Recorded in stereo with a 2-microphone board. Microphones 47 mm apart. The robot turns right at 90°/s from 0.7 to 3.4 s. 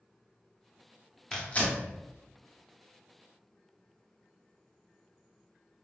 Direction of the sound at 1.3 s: 15° left (ahead or behind).